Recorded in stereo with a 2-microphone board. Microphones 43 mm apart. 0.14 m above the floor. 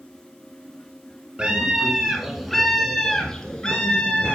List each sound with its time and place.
1.4 s a scream: 25° right (ahead or behind), 1.2 m; by 4.3 s 20° left (ahead or behind), 1.9 m